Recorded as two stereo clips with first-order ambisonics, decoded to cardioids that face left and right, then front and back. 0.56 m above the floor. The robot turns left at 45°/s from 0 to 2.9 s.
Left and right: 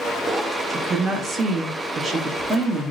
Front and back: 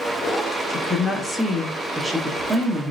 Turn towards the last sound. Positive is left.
turn(degrees=-145)